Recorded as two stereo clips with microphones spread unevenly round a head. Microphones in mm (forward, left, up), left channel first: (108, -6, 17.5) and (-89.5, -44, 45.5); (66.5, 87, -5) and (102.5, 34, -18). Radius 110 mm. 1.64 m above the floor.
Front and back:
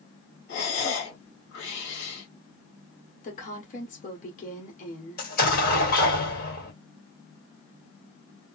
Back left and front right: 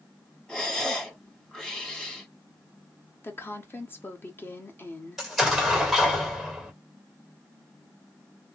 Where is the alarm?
No alarm in this recording.